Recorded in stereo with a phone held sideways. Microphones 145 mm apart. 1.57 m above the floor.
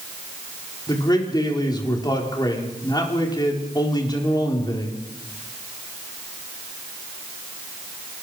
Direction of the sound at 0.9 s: 30° left (ahead or behind).